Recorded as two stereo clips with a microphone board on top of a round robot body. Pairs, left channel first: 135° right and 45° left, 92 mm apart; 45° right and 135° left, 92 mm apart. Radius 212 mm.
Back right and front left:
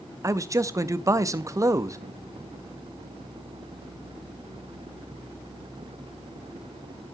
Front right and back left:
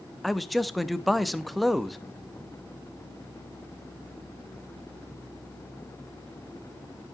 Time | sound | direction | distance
0.2 | a man speaking | 45° left | 1.0 m